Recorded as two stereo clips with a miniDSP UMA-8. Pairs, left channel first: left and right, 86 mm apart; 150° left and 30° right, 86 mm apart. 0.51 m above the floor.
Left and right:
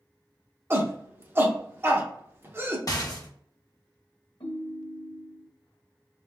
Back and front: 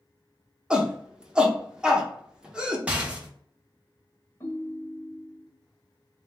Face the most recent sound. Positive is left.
turn(degrees=90)